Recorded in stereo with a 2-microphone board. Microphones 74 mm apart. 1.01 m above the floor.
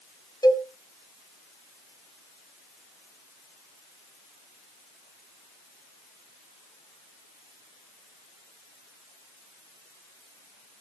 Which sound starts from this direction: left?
A cowbell, at 0.4 s.